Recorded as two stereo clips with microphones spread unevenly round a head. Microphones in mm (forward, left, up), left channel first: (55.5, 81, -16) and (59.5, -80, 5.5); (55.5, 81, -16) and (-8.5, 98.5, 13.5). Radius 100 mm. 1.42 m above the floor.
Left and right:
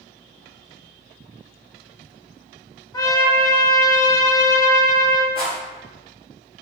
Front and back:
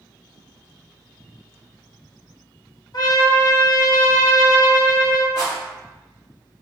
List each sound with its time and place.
2.9 s a trumpet: 20° left, 0.8 m
5.3 s a rattle: 135° right, 1.5 m